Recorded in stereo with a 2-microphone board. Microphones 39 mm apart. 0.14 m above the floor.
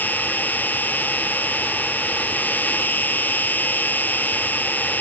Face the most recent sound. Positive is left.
turn(degrees=45)  # may be behind; listen again after turning